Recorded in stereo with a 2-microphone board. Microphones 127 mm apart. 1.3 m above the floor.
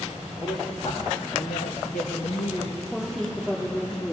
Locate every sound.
0.4 s a woman speaking: 50° left (ahead or behind), 2.5 m; by 2.8 s 55° left (ahead or behind), 1.6 m
2.9 s a woman speaking: 5° left (ahead or behind), 4 m